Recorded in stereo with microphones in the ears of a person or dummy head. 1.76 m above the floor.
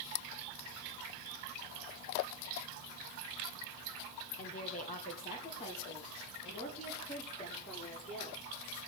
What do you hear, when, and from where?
4.4 s a woman speaking: 45° left (ahead or behind), 1.4 m; by 8.4 s 40° left (ahead or behind), 6.5 m